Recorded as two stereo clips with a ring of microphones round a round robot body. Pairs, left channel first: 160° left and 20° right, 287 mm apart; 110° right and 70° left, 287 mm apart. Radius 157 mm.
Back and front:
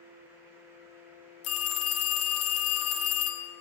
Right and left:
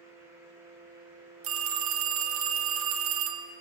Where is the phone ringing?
115° left, 0.9 m.